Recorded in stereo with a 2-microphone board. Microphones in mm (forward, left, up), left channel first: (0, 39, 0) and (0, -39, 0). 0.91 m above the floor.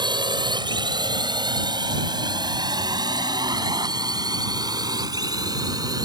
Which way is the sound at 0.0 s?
70° right (ahead or behind).